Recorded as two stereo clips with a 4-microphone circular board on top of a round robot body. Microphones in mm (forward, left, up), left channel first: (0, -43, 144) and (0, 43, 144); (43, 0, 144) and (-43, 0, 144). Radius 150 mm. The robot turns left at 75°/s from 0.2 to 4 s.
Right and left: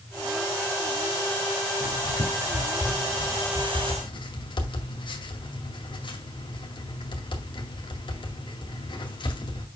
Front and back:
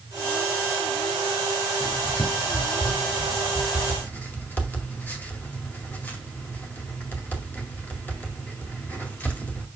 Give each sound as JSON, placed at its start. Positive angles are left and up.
{"t": 1.8, "sound": "writing", "azimuth_deg": 95, "distance_m": 2.0}